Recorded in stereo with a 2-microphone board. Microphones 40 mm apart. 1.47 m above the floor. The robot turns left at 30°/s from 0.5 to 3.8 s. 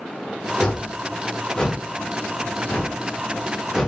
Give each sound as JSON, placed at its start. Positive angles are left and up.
{"t": 0.6, "sound": "a whoosh", "side_deg": 15, "distance_m": 1.1}